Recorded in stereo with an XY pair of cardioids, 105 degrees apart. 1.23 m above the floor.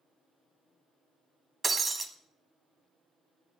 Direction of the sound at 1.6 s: 35° right.